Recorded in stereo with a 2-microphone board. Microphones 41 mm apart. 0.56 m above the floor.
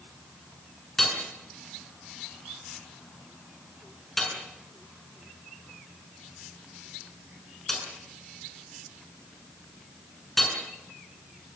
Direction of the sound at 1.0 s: 5° left (ahead or behind).